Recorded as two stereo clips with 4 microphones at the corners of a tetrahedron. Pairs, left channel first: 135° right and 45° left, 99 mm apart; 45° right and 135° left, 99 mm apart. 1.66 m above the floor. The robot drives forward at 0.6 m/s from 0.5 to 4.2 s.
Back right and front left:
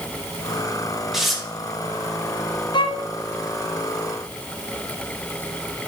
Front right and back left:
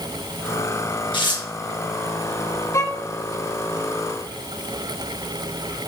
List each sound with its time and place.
1.1 s tearing paper: 40° right, 1.4 m; by 1.4 s 45° right, 1.3 m
2.7 s a violin: 105° right, 0.6 m; by 3.1 s 120° right, 0.6 m